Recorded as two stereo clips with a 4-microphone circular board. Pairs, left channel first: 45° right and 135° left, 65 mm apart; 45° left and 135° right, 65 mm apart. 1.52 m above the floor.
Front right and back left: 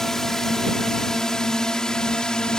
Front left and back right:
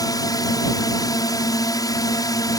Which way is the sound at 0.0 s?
40° left.